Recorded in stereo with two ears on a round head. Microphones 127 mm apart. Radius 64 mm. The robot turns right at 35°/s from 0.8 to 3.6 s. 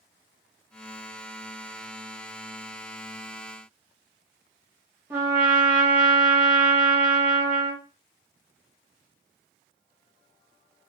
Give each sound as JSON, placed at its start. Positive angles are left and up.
{"t": 5.1, "sound": "a trumpet", "side_deg": -20, "distance_m": 0.9}